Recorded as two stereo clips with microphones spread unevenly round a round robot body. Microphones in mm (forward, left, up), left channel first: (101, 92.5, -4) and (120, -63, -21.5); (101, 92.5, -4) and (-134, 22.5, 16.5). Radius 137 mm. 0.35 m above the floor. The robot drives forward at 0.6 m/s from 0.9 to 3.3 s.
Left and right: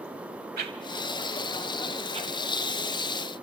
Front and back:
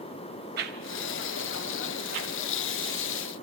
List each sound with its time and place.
0.6 s a whoosh: 110° right, 0.6 m; by 2.3 s 155° right, 1.2 m